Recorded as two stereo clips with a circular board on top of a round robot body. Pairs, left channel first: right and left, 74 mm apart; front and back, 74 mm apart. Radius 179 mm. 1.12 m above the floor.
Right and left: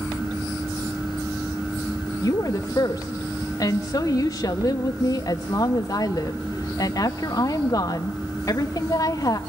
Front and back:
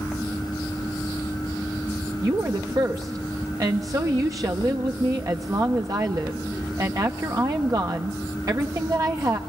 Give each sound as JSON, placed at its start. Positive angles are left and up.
{"t": 2.2, "sound": "a woman speaking", "azimuth_deg": -135, "distance_m": 1.0}